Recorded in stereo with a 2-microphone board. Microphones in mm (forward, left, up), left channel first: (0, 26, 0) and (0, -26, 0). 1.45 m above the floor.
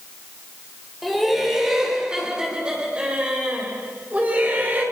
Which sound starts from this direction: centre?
Laughter, at 1.0 s.